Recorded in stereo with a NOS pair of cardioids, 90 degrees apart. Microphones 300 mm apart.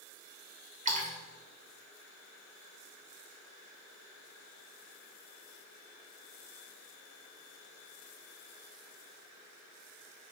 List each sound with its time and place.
0.8 s a splash: 25° right, 3 m